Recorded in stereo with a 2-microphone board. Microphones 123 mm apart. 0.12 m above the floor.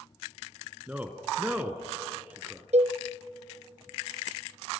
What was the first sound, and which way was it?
A man speaking, 10° right (ahead or behind).